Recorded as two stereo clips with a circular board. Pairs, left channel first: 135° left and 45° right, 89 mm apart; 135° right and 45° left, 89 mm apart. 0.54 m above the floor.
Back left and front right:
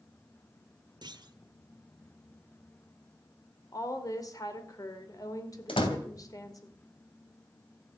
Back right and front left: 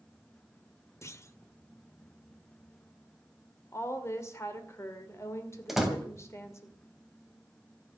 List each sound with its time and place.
1.0 s a clunk: 80° right, 0.9 m
3.7 s a woman speaking: 175° left, 2 m
5.7 s a door slam: 130° left, 2.5 m